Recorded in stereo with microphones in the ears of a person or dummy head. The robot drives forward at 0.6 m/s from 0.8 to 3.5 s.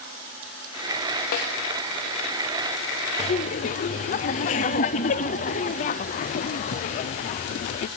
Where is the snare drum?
50° left (ahead or behind), 0.6 m.